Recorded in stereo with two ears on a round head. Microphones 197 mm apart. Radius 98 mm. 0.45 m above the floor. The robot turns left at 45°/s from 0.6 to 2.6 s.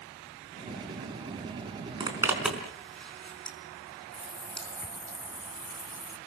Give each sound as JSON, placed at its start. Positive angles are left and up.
{"t": 2.0, "sound": "a zipper", "side_deg": -25, "distance_m": 4.5}
{"t": 4.1, "sound": "a running tap", "side_deg": 10, "distance_m": 3.0}